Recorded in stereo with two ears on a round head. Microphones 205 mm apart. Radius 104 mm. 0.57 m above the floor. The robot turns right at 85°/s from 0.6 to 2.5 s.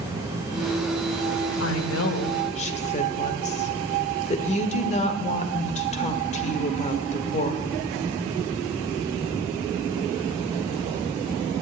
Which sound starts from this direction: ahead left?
A woman speaking, at 1.6 s.